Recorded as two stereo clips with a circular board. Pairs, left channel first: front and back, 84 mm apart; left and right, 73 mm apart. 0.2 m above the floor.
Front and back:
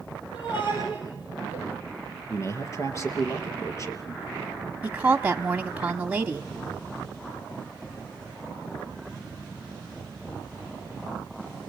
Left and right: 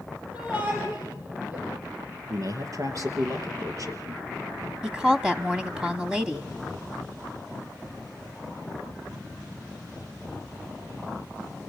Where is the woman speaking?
150° right, 1.0 m.